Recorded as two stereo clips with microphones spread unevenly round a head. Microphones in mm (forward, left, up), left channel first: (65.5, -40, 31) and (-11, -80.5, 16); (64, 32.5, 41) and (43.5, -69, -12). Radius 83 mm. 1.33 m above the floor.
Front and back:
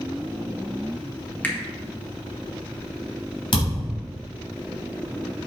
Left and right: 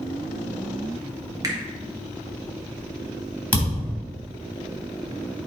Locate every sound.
1.4 s a finger snap: 40° right, 1.6 m
3.5 s a thud: 15° left, 3.5 m